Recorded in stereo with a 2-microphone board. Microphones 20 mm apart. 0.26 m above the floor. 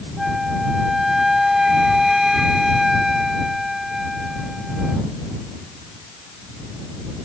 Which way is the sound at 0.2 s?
20° right (ahead or behind).